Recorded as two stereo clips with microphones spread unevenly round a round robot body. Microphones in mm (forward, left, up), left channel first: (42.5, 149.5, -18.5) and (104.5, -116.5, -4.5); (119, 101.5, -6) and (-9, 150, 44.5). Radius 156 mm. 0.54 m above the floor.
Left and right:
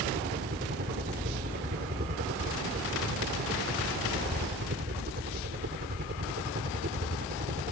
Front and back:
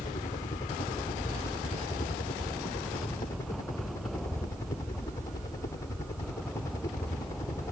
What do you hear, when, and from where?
0.0 s a helicopter: 40° right